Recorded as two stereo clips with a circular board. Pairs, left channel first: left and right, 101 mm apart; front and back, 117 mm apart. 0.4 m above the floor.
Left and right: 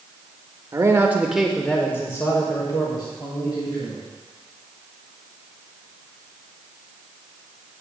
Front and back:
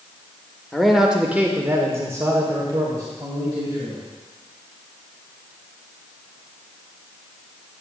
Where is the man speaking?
85° right, 0.9 m; by 4.0 s 120° left, 2 m.